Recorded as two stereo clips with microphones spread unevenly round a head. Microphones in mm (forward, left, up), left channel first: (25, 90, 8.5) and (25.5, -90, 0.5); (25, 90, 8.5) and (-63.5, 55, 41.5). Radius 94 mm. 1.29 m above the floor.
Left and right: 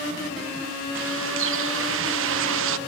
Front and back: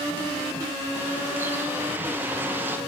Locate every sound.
0.9 s a bird: 80° right, 0.9 m